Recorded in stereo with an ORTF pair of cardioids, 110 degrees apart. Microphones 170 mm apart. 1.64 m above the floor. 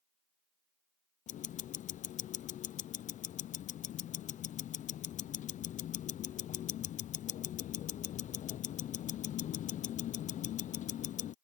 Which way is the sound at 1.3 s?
50° left.